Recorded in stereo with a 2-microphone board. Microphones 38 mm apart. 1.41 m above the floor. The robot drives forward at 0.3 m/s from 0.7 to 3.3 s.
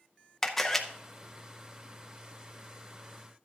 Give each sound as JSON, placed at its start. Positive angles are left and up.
{"t": 0.4, "sound": "a camera shutter", "side_deg": 10, "distance_m": 0.8}